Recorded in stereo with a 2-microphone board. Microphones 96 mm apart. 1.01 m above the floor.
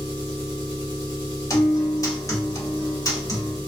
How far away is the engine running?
About 1.4 m.